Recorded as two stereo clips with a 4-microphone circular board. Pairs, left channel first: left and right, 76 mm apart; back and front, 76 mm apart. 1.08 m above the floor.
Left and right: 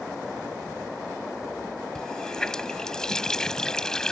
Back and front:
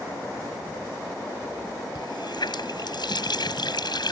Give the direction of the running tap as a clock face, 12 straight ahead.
6 o'clock.